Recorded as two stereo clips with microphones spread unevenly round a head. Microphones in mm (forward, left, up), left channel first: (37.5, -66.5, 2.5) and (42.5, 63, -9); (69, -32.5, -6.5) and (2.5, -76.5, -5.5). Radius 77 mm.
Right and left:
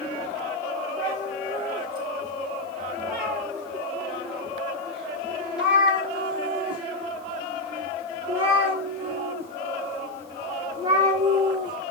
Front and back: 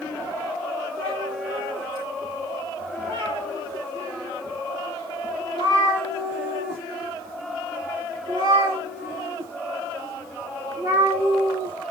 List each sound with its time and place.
1.0 s a cat meowing: straight behind, 8 m; by 11.8 s 150° left, 3 m